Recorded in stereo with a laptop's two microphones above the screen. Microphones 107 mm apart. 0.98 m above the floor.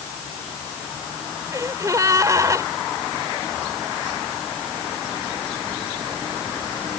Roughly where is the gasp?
Right.